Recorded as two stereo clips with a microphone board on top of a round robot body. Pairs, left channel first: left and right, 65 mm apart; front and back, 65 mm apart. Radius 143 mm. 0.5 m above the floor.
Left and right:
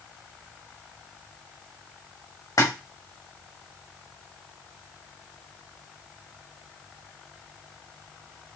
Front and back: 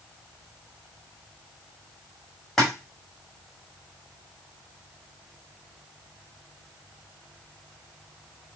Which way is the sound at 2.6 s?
85° left.